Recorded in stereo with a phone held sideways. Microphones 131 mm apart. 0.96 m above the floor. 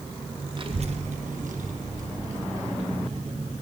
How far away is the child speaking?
About 0.8 m.